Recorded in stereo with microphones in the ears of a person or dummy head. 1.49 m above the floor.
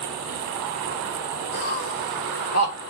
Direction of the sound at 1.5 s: 70° left (ahead or behind).